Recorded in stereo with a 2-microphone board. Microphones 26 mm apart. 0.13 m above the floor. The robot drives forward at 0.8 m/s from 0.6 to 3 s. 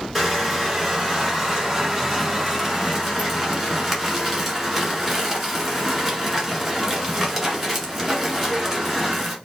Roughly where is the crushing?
Centre.